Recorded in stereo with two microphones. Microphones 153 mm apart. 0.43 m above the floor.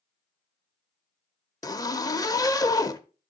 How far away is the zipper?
About 0.7 m.